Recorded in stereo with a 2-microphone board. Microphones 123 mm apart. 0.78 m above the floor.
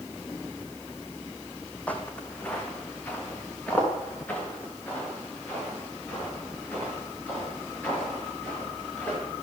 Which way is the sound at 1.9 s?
10° left (ahead or behind).